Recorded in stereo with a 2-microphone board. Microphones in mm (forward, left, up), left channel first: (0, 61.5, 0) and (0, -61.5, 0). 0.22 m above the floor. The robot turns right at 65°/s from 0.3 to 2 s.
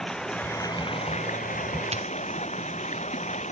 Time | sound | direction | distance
0.0 | running water | 5° left | ?
1.9 | a dropped coin | 55° right (ahead or behind) | ?